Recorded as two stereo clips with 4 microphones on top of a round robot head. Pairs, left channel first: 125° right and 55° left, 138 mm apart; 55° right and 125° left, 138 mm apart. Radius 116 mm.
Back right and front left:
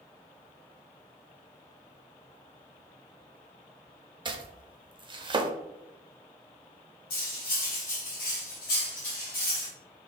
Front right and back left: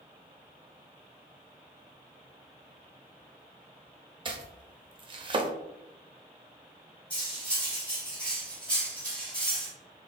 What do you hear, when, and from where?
4.2 s chopping: 90° left, 0.7 m
7.1 s cutlery clinking: 135° right, 1.7 m